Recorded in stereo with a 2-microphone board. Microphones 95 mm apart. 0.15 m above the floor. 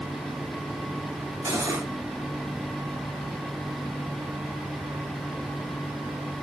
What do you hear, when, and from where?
1.4 s cutlery clinking: 30° right (ahead or behind), 1.7 m